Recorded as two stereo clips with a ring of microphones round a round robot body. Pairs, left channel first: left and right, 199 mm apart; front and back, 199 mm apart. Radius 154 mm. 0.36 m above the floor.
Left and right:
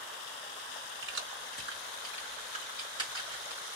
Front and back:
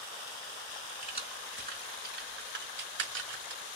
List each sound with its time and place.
1.0 s keys jangling: 115° right, 2.5 m; by 3.6 s 170° right, 2 m